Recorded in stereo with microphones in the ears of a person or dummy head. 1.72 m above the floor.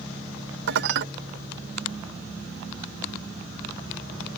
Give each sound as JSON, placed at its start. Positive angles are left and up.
{"t": 0.7, "sound": "dishes clattering", "side_deg": -60}